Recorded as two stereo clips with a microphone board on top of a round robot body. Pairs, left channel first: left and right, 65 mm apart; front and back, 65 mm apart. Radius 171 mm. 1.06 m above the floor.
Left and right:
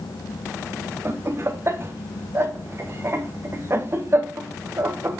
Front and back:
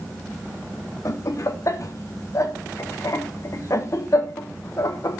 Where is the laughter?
40° right, 1.2 m.